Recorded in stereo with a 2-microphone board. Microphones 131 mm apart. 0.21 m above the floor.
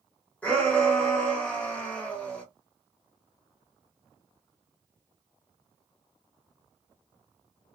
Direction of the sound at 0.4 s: 10° left (ahead or behind).